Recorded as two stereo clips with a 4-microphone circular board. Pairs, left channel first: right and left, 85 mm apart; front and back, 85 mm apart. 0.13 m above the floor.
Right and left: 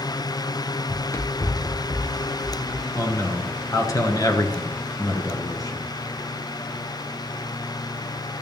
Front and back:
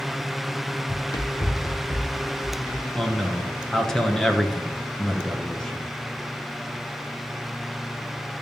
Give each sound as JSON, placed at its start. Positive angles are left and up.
{"t": 0.9, "sound": "running footsteps", "azimuth_deg": -25, "distance_m": 0.9}
{"t": 3.0, "sound": "a man speaking", "azimuth_deg": -80, "distance_m": 1.4}